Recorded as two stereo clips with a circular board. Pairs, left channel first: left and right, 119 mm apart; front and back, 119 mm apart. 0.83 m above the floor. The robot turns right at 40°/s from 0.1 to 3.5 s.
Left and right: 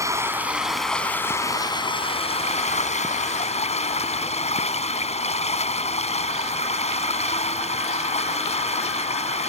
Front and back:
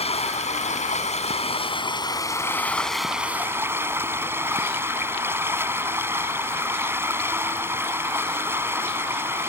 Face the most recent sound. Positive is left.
turn(degrees=110)